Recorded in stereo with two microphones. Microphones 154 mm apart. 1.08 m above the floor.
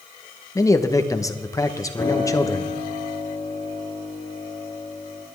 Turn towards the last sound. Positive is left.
turn(degrees=15)  # may be behind; listen again after turning